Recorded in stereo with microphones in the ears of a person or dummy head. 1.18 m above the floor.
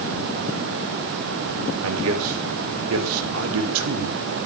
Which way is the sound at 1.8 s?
75° right (ahead or behind).